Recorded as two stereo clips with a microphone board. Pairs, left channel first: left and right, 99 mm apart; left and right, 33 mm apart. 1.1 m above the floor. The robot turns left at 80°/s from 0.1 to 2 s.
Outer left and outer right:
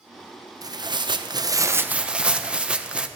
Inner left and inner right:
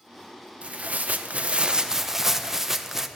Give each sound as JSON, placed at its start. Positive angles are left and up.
{"t": 0.6, "sound": "tearing paper", "azimuth_deg": -55, "distance_m": 0.6}